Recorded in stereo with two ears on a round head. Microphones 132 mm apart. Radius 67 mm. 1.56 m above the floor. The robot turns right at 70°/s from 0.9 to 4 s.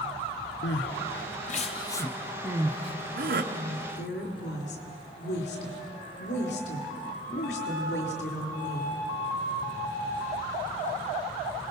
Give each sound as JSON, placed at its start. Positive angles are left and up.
{"t": 0.6, "sound": "crying", "side_deg": 85, "distance_m": 1.0}
{"t": 3.5, "sound": "a woman speaking", "azimuth_deg": 60, "distance_m": 4.0}